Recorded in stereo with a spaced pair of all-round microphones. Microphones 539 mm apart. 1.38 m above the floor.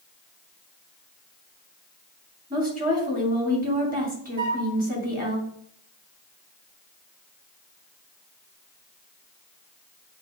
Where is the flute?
10° left (ahead or behind), 1.9 m.